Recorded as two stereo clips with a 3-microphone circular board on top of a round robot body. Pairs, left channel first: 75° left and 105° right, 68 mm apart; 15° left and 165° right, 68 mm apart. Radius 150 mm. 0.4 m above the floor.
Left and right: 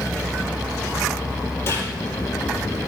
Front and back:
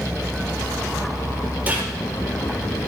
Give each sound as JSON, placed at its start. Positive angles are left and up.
{"t": 1.7, "sound": "a gunshot", "azimuth_deg": 125, "distance_m": 4.5}